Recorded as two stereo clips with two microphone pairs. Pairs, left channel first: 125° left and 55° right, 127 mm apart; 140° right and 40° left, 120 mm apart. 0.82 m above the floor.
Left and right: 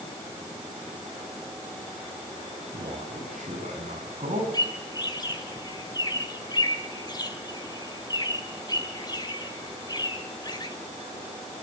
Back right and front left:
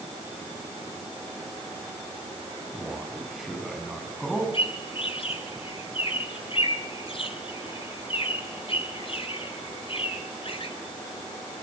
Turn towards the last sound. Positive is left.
turn(degrees=180)